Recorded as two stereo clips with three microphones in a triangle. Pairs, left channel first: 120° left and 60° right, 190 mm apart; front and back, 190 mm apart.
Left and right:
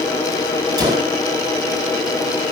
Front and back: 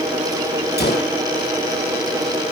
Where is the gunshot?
5° left, 3 m.